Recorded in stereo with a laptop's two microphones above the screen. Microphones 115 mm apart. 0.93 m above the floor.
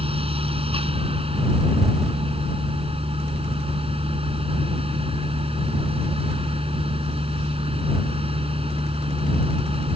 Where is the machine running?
55° right (ahead or behind).